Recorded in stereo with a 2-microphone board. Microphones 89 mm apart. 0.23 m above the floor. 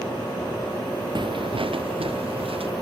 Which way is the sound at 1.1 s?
60° right (ahead or behind).